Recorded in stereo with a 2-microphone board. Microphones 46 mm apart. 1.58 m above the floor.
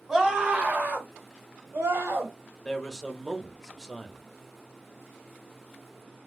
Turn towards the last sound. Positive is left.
turn(degrees=10)  # may be behind; listen again after turning